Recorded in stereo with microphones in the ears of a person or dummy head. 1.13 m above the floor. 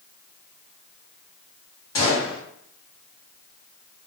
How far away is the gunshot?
About 1.0 m.